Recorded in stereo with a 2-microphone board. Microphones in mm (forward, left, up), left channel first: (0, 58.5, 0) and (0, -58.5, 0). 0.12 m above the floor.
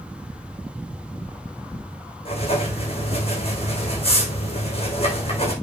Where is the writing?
55° left (ahead or behind), 4 m.